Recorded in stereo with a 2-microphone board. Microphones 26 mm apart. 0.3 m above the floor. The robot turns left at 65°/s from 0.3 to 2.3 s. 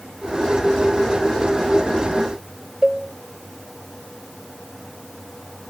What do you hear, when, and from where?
2.8 s a cowbell: 25° right (ahead or behind), 0.7 m